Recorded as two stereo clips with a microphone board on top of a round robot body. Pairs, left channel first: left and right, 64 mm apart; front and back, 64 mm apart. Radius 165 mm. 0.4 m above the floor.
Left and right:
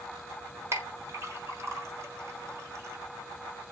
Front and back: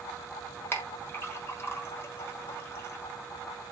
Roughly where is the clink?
Ahead right.